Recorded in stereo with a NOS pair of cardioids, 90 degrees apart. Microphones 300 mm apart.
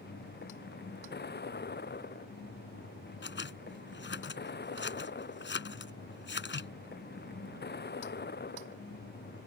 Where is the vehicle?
35° left.